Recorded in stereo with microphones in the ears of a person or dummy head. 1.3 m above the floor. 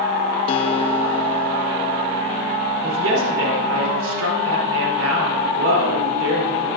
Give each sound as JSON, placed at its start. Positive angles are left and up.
{"t": 0.5, "sound": "a guitar", "side_deg": 30, "distance_m": 0.7}
{"t": 2.8, "sound": "a woman speaking", "side_deg": -85, "distance_m": 3.5}